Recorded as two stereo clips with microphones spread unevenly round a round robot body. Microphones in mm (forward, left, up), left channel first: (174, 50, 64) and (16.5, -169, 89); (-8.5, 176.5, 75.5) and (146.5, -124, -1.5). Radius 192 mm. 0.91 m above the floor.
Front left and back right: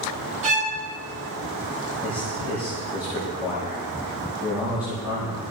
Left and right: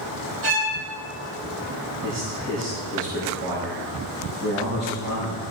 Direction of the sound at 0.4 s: 60° right.